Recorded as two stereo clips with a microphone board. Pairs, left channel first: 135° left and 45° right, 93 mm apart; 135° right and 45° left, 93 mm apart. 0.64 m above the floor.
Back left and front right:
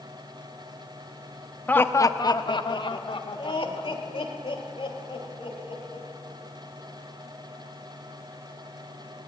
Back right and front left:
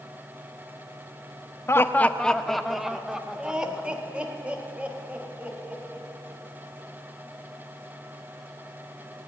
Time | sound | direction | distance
1.7 | laughter | 165° right | 0.6 m